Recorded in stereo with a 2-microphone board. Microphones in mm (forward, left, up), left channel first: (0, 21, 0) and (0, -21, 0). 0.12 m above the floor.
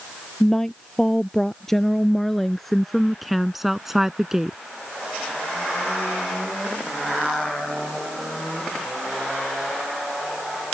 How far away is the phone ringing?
I don't hear a phone ringing.